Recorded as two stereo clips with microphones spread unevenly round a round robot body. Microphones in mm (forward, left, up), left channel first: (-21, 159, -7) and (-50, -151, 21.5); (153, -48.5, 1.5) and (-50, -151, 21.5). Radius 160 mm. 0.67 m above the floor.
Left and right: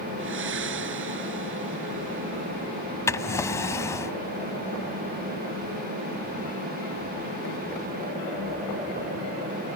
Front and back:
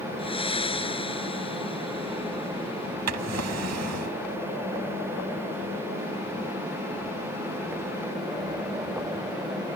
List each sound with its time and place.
0.2 s breathing: 40° right
3.1 s a drawer: 165° left